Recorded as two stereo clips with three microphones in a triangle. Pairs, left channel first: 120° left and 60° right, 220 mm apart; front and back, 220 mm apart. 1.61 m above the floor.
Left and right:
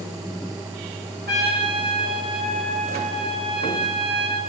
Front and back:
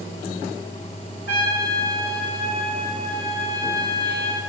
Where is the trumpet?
25° right, 4 m.